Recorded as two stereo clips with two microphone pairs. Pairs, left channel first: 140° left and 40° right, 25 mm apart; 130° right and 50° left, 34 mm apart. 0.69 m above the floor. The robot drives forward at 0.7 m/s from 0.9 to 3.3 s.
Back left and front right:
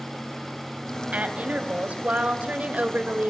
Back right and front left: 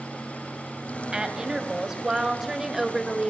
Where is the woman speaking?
20° right, 3.5 m; by 3.3 s 35° right, 2.0 m.